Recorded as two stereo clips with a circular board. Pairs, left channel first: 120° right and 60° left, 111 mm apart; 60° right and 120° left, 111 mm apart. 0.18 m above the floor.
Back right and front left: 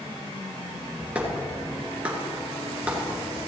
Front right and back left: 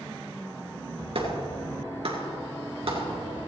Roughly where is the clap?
Behind left.